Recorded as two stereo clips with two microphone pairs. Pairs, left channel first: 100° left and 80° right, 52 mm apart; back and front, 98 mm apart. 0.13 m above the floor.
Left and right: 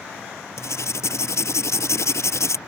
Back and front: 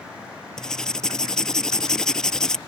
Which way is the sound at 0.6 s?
95° left.